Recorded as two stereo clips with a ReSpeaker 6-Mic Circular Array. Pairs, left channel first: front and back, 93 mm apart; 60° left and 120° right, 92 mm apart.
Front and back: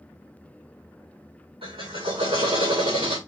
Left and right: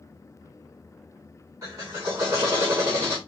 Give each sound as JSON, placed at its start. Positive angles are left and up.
{"t": 1.6, "sound": "a drill", "azimuth_deg": -175, "distance_m": 6.5}